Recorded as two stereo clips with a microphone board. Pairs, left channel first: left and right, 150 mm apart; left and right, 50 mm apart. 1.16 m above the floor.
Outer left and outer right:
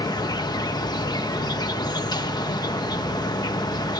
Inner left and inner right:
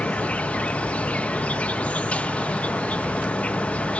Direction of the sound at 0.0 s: 25° left (ahead or behind).